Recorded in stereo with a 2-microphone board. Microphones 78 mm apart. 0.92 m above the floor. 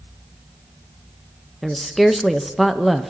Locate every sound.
1.6 s a woman speaking: centre (ahead or behind), 0.6 m